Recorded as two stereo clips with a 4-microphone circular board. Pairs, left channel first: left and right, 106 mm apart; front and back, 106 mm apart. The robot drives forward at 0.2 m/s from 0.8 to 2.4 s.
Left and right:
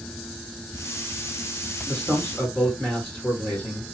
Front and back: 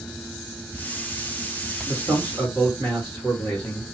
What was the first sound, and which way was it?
A man speaking, 160° left.